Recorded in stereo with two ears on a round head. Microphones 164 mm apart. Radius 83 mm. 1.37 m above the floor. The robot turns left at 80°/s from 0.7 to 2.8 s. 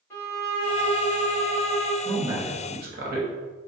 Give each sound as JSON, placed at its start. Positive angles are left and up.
{"t": 0.1, "sound": "a violin", "azimuth_deg": 165, "distance_m": 2.0}
{"t": 2.0, "sound": "a man speaking", "azimuth_deg": 5, "distance_m": 1.1}